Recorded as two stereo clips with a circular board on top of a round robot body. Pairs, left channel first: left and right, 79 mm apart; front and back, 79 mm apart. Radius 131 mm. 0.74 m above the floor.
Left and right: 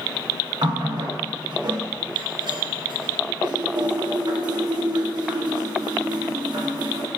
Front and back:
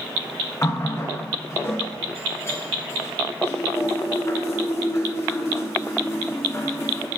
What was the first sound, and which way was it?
A running tap, 60° right.